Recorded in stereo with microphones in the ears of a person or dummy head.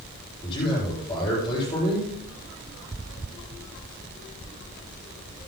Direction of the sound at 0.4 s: 20° left (ahead or behind).